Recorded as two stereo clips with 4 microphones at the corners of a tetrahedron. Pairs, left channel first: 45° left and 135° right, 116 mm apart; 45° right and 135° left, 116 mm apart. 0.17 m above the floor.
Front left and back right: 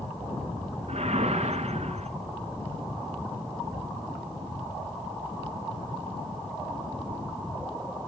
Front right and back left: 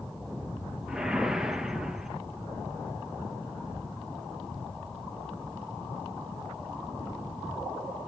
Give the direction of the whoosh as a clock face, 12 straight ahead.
5 o'clock.